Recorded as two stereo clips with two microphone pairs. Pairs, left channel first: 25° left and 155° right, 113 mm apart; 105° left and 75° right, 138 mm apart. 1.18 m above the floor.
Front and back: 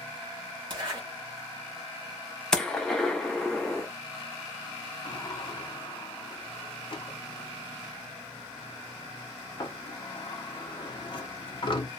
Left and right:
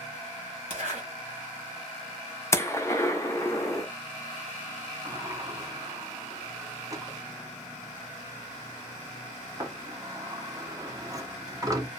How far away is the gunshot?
About 0.6 m.